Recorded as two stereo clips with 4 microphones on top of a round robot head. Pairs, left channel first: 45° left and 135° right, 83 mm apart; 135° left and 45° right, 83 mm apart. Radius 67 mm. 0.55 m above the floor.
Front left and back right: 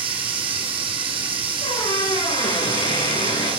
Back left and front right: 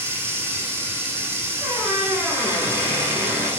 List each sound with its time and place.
0.0 s running water: 110° right, 3 m
1.6 s a squeak: 15° left, 9.5 m